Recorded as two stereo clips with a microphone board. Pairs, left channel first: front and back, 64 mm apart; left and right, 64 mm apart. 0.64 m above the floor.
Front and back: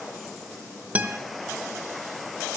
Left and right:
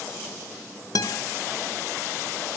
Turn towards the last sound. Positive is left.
turn(degrees=115)